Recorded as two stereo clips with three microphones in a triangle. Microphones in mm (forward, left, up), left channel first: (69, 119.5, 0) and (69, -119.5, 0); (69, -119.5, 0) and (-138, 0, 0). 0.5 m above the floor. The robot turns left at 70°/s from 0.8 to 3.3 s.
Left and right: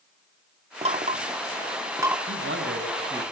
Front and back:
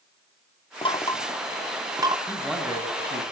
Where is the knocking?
65° right, 0.7 m; by 2.2 s 160° right, 0.7 m.